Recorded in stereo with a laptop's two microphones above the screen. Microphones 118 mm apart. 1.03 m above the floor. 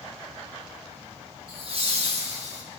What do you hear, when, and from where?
1.5 s laughter: 50° right (ahead or behind), 1.4 m; by 2.6 s 70° right (ahead or behind), 1.3 m